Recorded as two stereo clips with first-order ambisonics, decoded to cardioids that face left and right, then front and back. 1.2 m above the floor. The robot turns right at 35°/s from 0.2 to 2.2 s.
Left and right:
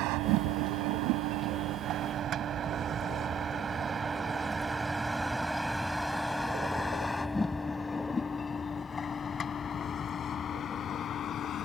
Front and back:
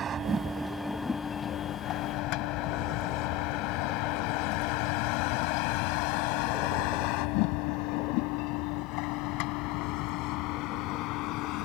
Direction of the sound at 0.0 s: 120° right.